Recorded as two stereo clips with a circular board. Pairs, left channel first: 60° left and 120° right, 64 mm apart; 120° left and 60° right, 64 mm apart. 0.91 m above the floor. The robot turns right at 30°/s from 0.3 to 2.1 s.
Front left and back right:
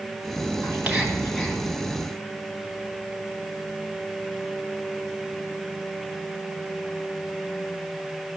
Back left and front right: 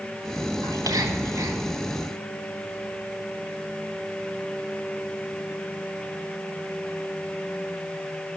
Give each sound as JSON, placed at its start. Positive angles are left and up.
{"t": 0.6, "sound": "whispering", "azimuth_deg": -65, "distance_m": 3.0}